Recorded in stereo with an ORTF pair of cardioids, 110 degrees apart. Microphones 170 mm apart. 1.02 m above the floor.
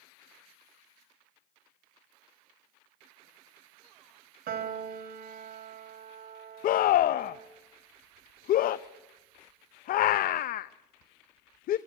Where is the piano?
60° right, 3 m.